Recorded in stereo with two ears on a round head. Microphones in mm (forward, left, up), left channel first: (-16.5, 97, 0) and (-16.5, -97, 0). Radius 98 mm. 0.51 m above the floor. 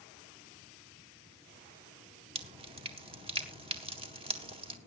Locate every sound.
2.4 s dripping: 25° right (ahead or behind), 1.7 m